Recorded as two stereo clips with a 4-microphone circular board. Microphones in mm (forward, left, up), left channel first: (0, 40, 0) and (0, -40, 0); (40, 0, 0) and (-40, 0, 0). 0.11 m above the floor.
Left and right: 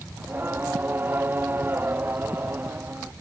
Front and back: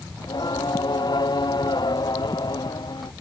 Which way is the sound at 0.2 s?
25° right.